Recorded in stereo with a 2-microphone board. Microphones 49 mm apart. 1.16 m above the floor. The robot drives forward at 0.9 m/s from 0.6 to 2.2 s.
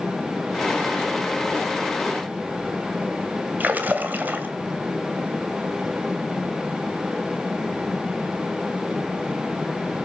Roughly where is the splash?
Right.